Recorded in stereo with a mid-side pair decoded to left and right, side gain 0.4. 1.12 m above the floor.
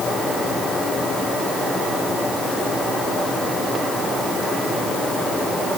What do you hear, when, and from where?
Only background noise.